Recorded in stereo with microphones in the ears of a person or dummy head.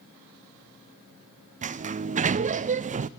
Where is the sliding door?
40° right (ahead or behind), 0.6 m.